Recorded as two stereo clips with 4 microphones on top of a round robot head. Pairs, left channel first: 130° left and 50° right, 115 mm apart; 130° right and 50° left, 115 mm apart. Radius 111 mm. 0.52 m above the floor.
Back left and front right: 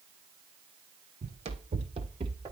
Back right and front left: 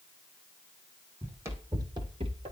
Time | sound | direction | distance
1.2 | running footsteps | 25° right | 1.7 m